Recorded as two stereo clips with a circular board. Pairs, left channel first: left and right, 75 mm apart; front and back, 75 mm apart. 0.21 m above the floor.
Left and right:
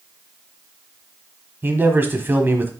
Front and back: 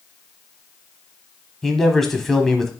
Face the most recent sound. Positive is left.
turn(degrees=-80)